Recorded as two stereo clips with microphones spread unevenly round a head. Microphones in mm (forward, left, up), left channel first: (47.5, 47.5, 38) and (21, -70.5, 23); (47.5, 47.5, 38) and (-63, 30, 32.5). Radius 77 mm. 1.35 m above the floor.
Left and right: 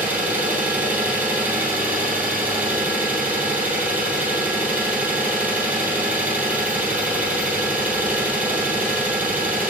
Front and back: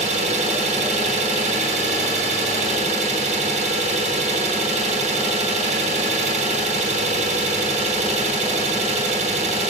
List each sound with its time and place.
0.0 s an engine running: 175° left, 1.0 m